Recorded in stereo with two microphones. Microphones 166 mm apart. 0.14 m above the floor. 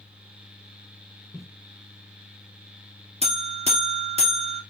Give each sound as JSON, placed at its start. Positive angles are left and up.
{"t": 1.3, "sound": "footsteps", "side_deg": 0, "distance_m": 1.6}
{"t": 3.2, "sound": "a buzzer", "side_deg": -40, "distance_m": 1.3}